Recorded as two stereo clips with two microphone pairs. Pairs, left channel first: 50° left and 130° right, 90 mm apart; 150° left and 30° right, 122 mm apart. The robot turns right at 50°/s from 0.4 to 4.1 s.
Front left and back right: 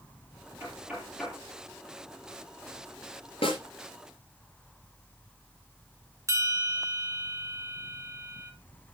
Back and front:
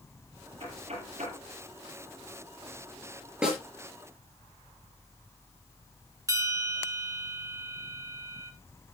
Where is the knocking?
70° right, 8 m; by 1.4 s 30° right, 8 m.